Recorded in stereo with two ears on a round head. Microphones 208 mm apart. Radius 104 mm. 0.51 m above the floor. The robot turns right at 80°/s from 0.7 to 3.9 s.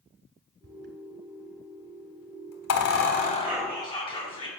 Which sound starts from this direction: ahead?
Whispering, at 3.4 s.